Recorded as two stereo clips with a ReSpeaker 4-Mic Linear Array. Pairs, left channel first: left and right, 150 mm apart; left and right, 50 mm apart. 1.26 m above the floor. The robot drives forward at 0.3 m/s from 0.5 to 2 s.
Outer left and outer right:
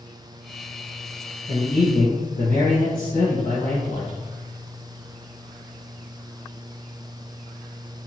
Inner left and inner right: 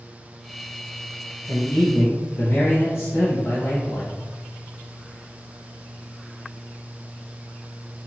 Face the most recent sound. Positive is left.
turn(degrees=65)  # may be behind; listen again after turning